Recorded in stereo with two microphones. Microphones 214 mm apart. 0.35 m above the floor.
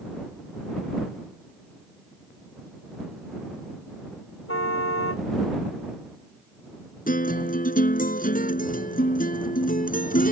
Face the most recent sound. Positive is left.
turn(degrees=40)  # may be behind; listen again after turning